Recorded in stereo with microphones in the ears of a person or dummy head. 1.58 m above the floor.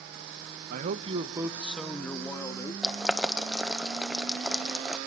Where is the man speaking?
55° right (ahead or behind), 1.1 m; by 2.7 s 15° left (ahead or behind), 2.5 m.